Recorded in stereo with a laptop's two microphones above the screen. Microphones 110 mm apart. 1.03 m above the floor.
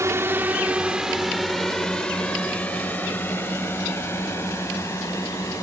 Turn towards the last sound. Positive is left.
turn(degrees=30)  # may be behind; listen again after turning